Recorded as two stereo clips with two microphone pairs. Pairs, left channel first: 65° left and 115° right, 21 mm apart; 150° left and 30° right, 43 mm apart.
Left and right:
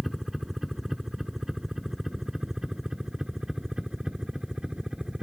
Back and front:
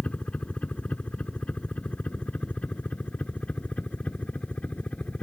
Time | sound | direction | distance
0.0 | a helicopter | 170° left | ?